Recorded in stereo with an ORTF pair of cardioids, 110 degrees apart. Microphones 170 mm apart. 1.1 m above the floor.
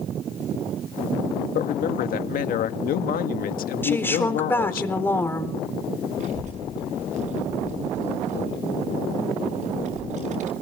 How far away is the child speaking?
About 5.5 m.